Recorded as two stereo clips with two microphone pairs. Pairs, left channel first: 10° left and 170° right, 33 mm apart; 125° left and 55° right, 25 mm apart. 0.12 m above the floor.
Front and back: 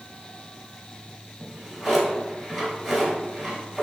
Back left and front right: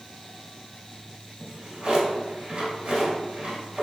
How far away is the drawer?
About 1.2 m.